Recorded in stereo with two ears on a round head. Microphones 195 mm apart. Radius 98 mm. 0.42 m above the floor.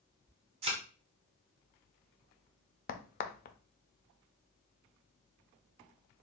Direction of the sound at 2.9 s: 45° left (ahead or behind).